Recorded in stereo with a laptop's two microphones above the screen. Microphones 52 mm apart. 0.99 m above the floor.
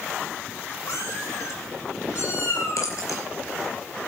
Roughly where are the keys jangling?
Left.